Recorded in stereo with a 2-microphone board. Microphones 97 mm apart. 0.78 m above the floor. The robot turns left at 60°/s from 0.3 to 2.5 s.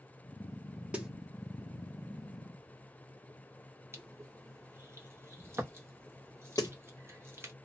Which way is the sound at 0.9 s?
15° right (ahead or behind).